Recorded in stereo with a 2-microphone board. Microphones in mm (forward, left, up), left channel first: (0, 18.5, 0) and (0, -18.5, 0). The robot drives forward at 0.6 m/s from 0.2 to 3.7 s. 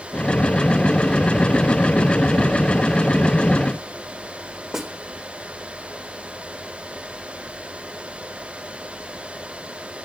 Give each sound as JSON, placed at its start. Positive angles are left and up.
{"t": 4.7, "sound": "a snare drum", "side_deg": -10, "distance_m": 1.6}